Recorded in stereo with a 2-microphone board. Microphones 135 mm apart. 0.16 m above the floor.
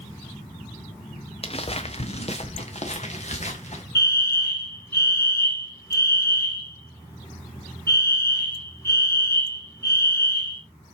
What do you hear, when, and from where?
1.4 s footsteps: 45° left (ahead or behind), 1.2 m; by 3.8 s 50° left (ahead or behind), 2.5 m
4.0 s a fire alarm: 20° left (ahead or behind), 3.5 m